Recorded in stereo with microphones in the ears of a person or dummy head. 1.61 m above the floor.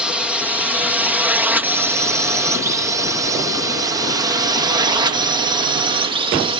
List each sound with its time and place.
0.0 s a drone: 5° right (ahead or behind); by 6.6 s 30° right (ahead or behind)